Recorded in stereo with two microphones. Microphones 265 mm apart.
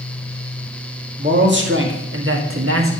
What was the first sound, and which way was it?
A man speaking, 40° right (ahead or behind).